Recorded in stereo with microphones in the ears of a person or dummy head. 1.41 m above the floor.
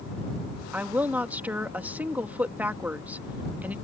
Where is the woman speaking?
10° right (ahead or behind).